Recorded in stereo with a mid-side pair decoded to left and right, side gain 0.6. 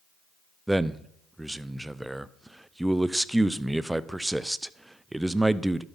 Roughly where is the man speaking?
Ahead.